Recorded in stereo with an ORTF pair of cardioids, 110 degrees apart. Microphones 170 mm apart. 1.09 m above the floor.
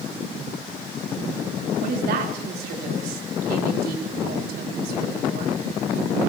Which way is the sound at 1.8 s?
70° right.